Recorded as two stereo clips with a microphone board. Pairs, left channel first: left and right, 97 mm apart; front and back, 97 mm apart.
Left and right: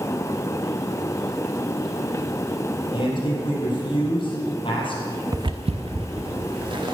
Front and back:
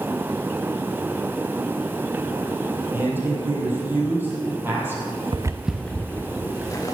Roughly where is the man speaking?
Behind left.